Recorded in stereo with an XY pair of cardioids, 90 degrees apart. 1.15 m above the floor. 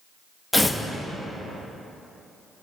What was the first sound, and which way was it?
Tearing paper, 5° left.